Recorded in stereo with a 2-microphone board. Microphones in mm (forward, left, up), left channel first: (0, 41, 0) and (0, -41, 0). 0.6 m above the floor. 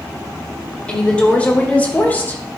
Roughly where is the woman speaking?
Centre.